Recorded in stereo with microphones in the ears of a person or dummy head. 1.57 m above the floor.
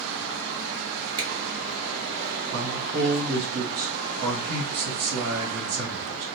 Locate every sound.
1.2 s a finger snap: 25° right (ahead or behind), 0.8 m
2.5 s a man speaking: 65° right (ahead or behind), 1.2 m